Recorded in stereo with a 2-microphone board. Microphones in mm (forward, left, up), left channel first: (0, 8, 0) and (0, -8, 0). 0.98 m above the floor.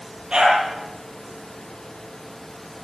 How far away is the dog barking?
About 8.5 m.